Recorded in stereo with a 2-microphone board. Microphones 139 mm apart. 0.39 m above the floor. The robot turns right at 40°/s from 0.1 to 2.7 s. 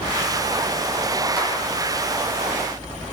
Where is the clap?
15° right (ahead or behind), 3 m; by 1.5 s 10° right (ahead or behind), 3 m.